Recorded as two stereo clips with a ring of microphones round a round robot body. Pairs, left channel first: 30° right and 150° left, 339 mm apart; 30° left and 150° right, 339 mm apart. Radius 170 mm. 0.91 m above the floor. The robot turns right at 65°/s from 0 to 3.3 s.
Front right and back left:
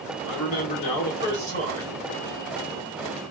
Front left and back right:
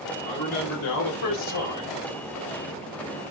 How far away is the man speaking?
About 1.0 m.